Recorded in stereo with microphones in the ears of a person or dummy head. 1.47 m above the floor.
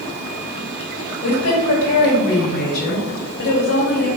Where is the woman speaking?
65° left (ahead or behind), 2.5 m.